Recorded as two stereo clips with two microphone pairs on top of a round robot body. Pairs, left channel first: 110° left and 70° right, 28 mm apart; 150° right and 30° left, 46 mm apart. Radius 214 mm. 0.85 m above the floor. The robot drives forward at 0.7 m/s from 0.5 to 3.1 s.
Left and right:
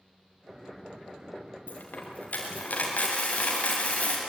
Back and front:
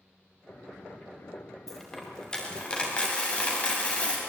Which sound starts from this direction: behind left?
A dropped coin, at 1.7 s.